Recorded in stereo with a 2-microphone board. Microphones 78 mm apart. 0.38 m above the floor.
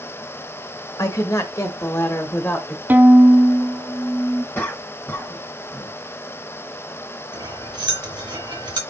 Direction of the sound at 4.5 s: 30° left (ahead or behind).